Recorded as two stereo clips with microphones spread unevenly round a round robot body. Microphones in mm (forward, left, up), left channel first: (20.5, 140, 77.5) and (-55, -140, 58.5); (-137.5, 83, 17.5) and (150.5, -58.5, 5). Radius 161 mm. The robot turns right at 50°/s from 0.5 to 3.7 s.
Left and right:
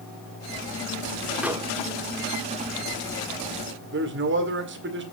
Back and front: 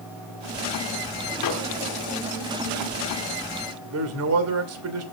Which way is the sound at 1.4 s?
170° left.